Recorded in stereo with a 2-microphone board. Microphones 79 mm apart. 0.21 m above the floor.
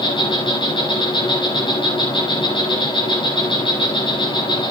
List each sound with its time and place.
0.0 s an insect: 90° left, 5 m